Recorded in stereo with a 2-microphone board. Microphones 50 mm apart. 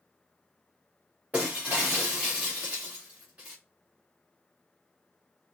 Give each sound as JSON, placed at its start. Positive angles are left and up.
{"t": 1.3, "sound": "breaking glass", "side_deg": -30, "distance_m": 3.5}